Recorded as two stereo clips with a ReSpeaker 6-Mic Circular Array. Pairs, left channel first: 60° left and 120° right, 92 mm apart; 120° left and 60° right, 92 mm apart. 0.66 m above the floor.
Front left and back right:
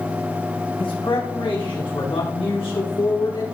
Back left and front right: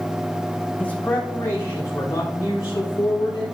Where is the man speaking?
45° left, 4 m; by 3.5 s 80° left, 4.5 m.